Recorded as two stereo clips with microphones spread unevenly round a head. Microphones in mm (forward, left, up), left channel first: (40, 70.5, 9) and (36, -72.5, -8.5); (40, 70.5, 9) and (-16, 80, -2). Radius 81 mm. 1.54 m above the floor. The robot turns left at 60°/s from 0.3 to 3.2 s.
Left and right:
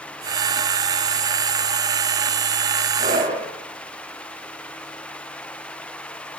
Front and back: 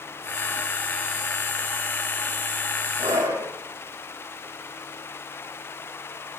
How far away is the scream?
About 7.5 m.